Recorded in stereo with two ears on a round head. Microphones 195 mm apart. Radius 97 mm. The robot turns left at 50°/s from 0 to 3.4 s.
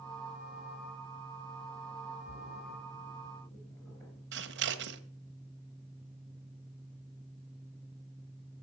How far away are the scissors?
About 1.1 m.